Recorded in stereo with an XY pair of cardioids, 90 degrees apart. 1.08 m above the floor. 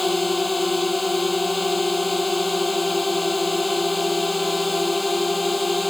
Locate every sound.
0.0 s a drone: 20° left